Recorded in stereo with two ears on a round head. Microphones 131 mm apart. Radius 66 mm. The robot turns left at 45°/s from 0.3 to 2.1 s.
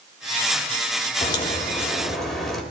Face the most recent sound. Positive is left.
turn(degrees=5)